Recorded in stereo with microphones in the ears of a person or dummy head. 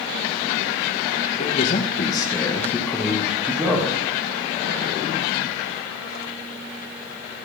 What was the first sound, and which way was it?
A man speaking, 45° left (ahead or behind).